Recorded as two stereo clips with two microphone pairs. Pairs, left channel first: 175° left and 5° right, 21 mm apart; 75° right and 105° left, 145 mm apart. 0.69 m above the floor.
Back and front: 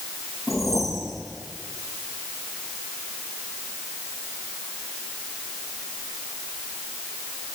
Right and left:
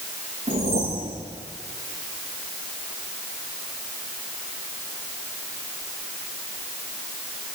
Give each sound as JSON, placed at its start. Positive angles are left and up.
{"t": 0.5, "sound": "a whoosh", "azimuth_deg": 70, "distance_m": 7.5}